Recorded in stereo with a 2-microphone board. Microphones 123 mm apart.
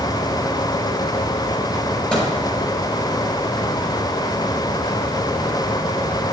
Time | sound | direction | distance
2.1 | a microwave | 5° left (ahead or behind) | 5.5 m